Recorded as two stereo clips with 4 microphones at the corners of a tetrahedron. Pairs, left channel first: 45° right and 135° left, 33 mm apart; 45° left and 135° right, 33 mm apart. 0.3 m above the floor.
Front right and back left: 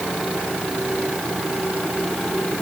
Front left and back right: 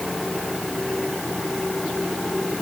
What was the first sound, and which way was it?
Only background noise.